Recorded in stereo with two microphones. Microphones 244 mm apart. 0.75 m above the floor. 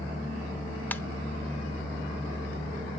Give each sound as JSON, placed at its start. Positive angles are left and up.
{"t": 0.9, "sound": "a ringtone", "side_deg": 5, "distance_m": 0.8}